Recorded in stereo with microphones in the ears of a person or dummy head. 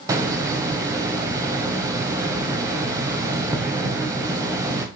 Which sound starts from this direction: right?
A hiss, at 0.1 s.